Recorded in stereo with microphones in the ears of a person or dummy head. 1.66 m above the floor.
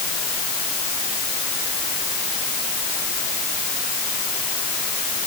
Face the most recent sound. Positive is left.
No sound to turn to.